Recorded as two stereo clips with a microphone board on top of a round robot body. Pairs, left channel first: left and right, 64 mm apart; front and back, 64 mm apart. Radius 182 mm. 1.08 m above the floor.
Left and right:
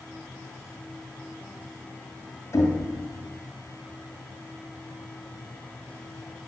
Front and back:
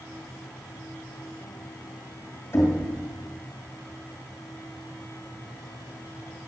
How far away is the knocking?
About 2 m.